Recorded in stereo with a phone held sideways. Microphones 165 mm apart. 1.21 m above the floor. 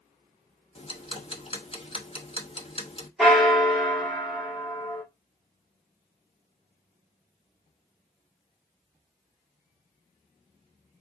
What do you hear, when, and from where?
0.8 s ticking: 35° left (ahead or behind), 0.9 m
3.2 s a bell: centre (ahead or behind), 1.8 m